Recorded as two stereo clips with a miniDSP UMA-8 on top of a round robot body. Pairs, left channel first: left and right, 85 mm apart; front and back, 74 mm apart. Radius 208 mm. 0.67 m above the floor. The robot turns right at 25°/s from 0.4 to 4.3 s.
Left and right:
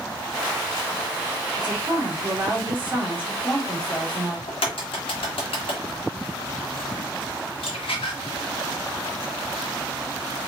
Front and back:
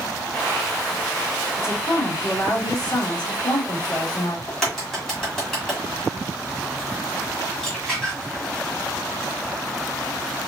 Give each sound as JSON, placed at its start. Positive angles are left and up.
{"t": 1.6, "sound": "a woman speaking", "azimuth_deg": -55, "distance_m": 2.5}
{"t": 4.5, "sound": "a crack", "azimuth_deg": 90, "distance_m": 1.6}